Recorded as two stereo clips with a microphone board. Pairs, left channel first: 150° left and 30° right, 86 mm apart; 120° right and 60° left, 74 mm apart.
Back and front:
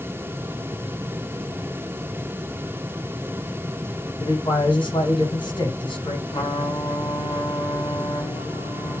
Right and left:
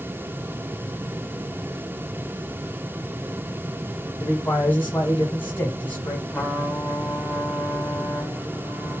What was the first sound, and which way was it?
A man speaking, 175° left.